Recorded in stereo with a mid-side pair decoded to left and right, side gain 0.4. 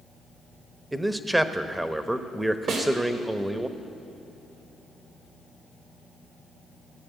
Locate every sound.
0.9 s a man speaking: 10° right, 0.9 m
2.7 s a snare drum: 70° right, 2.5 m